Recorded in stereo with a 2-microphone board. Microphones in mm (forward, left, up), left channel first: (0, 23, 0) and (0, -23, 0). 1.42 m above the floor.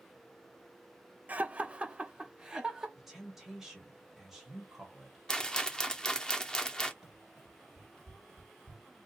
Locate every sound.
1.3 s laughter: 35° right (ahead or behind), 0.5 m; by 2.9 s 15° right (ahead or behind), 1.2 m
3.0 s a woman speaking: 5° right (ahead or behind), 1.2 m
5.3 s a rattle: 20° left (ahead or behind), 0.5 m
7.0 s running footsteps: centre (ahead or behind), 1.8 m; by 8.8 s 30° left (ahead or behind), 1.6 m